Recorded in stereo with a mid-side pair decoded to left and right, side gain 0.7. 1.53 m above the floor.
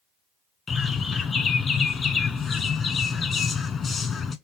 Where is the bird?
25° left, 1.1 m.